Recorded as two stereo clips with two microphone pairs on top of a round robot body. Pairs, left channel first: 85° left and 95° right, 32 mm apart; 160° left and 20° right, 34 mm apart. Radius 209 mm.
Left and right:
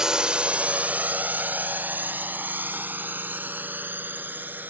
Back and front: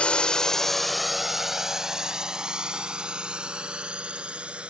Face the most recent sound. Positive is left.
turn(degrees=-80)